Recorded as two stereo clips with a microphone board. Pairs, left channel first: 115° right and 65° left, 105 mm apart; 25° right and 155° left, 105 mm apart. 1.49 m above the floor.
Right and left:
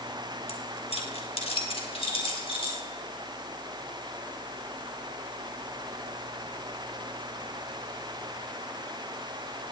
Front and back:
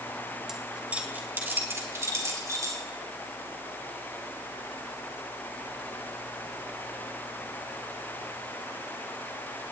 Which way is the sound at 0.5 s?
115° right.